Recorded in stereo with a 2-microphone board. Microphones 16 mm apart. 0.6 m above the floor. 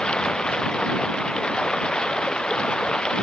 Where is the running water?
75° left (ahead or behind).